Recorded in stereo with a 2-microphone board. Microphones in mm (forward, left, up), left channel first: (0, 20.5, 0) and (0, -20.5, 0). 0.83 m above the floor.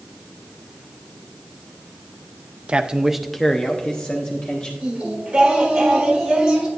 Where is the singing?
20° right (ahead or behind), 3 m.